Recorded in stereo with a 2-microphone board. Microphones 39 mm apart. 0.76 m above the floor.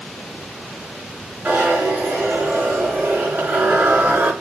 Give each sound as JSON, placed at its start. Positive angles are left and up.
{"t": 1.4, "sound": "a zipper", "side_deg": -60, "distance_m": 5.0}